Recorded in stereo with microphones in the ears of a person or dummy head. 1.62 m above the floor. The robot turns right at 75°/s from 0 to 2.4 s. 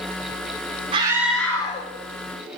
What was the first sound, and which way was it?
A scream, 30° right.